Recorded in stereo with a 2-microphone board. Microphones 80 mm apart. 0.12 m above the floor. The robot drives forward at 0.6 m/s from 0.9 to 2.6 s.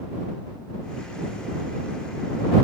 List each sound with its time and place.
Only background noise.